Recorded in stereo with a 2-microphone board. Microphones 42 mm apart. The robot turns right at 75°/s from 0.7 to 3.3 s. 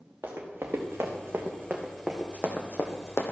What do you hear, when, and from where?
0.2 s running footsteps: 65° right (ahead or behind), 2.5 m; by 3.3 s 60° left (ahead or behind), 1.3 m